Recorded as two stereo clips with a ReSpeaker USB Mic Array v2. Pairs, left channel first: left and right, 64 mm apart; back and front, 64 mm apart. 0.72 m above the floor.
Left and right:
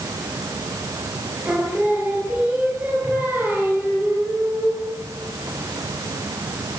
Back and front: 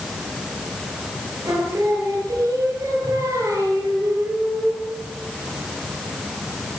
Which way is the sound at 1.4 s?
30° right.